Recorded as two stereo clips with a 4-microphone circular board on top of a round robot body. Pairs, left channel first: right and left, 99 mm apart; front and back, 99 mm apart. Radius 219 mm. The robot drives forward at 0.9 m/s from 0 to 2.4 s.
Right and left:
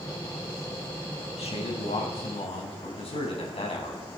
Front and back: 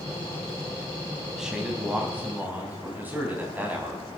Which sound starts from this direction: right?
A man speaking, at 1.4 s.